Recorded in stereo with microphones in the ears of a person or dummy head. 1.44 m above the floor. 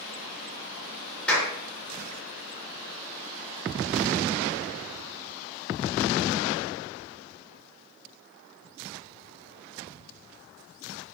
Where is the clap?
10° left (ahead or behind), 2.5 m.